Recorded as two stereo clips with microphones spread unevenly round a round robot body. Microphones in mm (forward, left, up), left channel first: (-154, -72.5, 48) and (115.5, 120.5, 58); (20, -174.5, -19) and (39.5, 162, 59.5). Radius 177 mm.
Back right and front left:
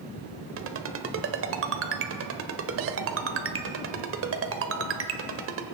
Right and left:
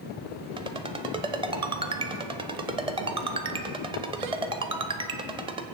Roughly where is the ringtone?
Ahead.